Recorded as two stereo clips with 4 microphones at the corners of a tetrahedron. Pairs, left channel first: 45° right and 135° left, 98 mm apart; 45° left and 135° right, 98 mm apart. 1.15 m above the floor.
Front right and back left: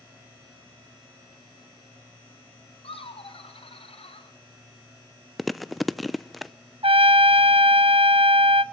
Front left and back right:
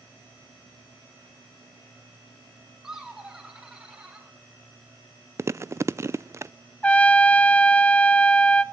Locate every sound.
2.8 s laughter: 50° right, 4.5 m; by 4.3 s 55° right, 5.5 m
5.4 s chewing: 135° right, 0.6 m
6.8 s a trumpet: 120° left, 0.8 m